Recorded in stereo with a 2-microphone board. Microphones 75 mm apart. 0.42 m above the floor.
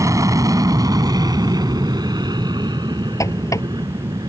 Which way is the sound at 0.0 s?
45° right (ahead or behind).